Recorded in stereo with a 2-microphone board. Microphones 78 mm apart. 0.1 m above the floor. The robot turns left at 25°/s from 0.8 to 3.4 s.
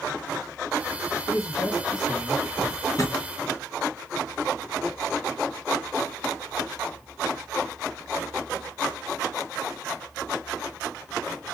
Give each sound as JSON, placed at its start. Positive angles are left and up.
{"t": 1.3, "sound": "a man speaking", "azimuth_deg": 115, "distance_m": 2.5}
{"t": 2.6, "sound": "a drawer", "side_deg": 50, "distance_m": 1.7}